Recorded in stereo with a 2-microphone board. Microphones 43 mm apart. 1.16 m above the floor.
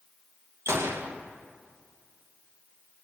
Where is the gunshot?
85° right, 0.7 m.